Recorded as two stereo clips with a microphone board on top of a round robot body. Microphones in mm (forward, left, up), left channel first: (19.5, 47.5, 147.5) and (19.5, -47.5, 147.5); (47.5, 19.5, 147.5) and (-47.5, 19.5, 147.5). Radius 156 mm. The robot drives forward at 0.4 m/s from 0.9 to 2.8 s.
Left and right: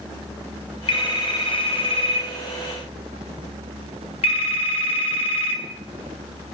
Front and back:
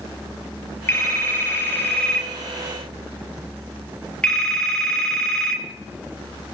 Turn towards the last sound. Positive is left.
turn(degrees=85)